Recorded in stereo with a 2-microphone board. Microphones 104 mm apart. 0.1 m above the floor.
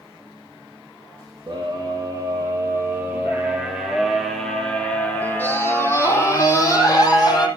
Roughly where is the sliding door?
I don't hear a sliding door.